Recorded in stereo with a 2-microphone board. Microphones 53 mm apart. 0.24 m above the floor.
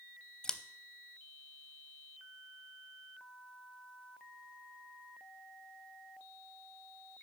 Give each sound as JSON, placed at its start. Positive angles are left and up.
{"t": 0.4, "sound": "scissors", "side_deg": 15, "distance_m": 0.5}